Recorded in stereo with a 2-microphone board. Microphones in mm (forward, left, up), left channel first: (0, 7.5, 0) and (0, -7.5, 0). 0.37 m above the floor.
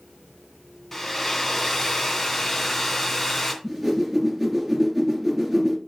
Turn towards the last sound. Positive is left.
turn(degrees=0)  # may be behind; listen again after turning